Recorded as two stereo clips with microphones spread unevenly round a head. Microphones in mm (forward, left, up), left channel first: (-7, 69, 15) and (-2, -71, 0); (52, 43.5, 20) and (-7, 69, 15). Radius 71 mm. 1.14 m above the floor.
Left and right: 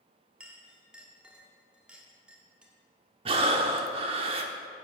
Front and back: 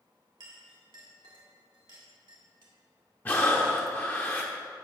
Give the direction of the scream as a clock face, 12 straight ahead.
I don't hear a scream.